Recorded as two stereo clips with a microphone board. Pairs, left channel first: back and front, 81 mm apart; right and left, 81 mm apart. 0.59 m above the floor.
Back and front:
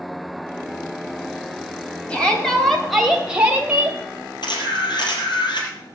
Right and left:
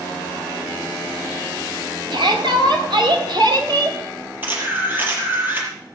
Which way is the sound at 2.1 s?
105° left.